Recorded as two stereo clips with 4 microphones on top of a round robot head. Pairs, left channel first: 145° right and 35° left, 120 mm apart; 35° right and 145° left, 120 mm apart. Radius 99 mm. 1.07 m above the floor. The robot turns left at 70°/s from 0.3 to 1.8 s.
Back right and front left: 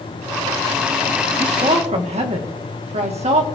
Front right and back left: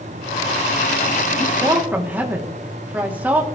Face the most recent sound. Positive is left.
turn(degrees=70)